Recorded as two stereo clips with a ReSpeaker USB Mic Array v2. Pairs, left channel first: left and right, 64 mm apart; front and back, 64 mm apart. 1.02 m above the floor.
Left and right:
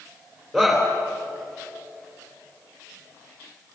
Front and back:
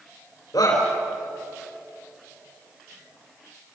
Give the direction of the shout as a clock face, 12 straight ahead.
12 o'clock.